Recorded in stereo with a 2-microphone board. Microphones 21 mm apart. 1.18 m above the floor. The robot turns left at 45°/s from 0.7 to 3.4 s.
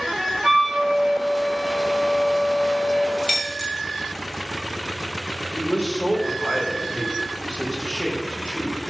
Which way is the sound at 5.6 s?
70° left (ahead or behind).